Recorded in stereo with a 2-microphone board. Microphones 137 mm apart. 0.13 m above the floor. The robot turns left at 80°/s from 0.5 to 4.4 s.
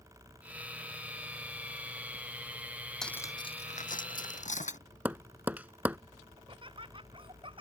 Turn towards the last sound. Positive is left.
turn(degrees=-40)  # may be behind; listen again after turning